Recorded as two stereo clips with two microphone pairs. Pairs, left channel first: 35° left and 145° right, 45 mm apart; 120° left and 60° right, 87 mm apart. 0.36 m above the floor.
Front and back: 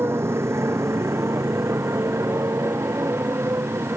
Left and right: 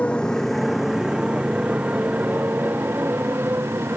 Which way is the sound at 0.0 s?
165° right.